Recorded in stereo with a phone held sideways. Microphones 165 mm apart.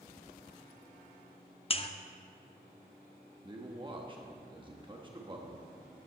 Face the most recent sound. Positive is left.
turn(degrees=-30)  # may be behind; listen again after turning